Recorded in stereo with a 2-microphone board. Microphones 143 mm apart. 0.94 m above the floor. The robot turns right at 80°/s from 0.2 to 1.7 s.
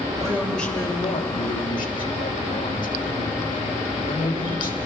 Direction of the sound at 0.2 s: 25° right.